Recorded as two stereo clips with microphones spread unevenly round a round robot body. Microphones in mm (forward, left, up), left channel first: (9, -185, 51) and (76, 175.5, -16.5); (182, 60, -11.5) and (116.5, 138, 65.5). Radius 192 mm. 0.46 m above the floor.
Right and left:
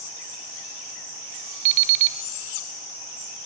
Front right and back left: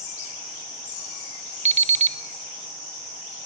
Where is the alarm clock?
90° left, 0.9 m.